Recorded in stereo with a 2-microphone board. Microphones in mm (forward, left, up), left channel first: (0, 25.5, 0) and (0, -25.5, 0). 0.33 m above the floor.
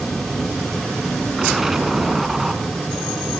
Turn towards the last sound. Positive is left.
turn(degrees=-5)  # may be behind; listen again after turning